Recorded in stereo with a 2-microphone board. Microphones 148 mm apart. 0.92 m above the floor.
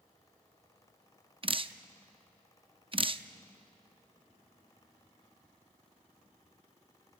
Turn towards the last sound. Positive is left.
turn(degrees=-35)  # may be behind; listen again after turning